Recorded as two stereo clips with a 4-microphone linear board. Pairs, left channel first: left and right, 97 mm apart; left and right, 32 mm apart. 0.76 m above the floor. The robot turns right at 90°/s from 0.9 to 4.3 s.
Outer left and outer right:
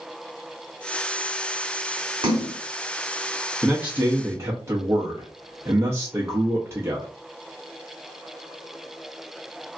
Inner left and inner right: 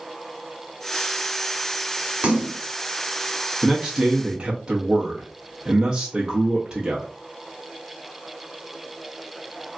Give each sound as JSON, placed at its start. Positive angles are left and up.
{"t": 2.2, "sound": "a splash", "side_deg": -55, "distance_m": 1.2}
{"t": 3.6, "sound": "a man speaking", "side_deg": -5, "distance_m": 0.6}